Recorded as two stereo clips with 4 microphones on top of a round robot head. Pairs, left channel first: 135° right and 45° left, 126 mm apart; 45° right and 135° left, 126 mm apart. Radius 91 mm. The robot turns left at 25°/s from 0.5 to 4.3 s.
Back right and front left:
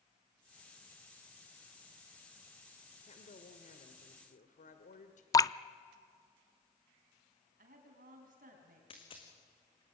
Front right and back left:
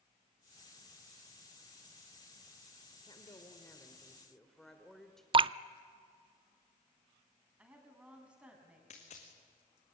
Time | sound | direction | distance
3.0 | a woman speaking | 100° right | 1.8 m
5.3 | dripping | 170° left | 0.5 m
7.6 | a woman speaking | 50° left | 5 m
8.9 | a dropped coin | 85° right | 3 m